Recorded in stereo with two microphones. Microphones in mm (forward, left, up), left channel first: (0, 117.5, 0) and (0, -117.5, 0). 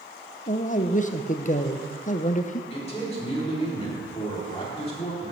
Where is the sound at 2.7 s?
30° left (ahead or behind), 3 m.